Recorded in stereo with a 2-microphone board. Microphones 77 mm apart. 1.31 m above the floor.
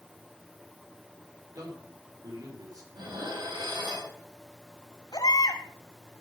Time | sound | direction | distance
1.6 | a man speaking | 55° right (ahead or behind) | 4.5 m
2.9 | dishes clattering | 80° right | 4.5 m
5.1 | a baby crying | 60° left (ahead or behind) | 2.5 m